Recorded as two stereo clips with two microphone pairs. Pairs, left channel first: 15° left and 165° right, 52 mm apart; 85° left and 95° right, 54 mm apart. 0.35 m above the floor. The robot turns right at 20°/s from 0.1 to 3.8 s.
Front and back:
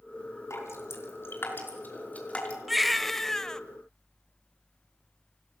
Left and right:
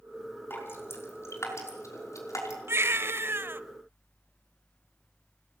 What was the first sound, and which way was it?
Dripping, 40° left.